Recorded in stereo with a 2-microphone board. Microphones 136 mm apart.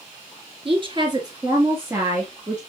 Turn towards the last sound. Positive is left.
turn(degrees=-5)  # may be behind; listen again after turning